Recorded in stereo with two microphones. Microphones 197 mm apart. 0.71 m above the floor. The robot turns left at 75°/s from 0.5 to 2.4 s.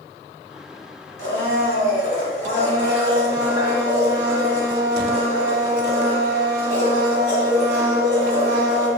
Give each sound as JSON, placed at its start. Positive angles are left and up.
{"t": 1.2, "sound": "a blender", "azimuth_deg": 145, "distance_m": 1.2}